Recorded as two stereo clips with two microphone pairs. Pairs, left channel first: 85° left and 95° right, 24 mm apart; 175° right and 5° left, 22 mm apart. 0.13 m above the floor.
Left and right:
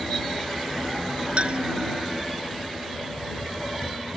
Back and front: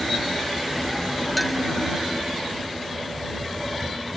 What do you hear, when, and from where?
1.4 s a clink: 90° right